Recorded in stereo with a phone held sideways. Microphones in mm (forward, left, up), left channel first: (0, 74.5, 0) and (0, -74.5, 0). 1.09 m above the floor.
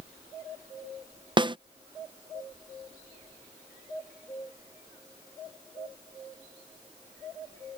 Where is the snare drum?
30° right (ahead or behind).